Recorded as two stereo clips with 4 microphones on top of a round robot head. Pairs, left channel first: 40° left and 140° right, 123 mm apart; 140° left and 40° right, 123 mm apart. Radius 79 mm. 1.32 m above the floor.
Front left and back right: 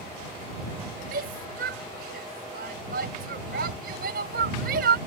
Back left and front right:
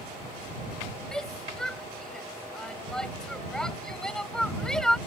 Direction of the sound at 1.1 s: 135° right.